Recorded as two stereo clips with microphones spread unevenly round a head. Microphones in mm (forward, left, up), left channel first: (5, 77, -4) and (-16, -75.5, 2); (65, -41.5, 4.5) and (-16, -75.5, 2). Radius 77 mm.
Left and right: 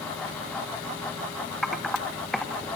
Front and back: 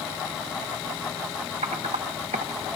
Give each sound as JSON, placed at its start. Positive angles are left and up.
{"t": 1.6, "sound": "typing on a keyboard", "azimuth_deg": 170, "distance_m": 0.9}